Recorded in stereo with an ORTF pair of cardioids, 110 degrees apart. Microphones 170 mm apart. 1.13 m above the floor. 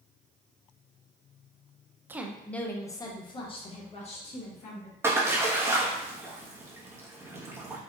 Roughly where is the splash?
Ahead.